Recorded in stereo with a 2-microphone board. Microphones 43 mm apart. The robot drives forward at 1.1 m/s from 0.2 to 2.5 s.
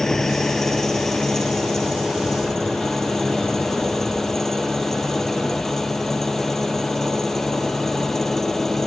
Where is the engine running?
10° left (ahead or behind).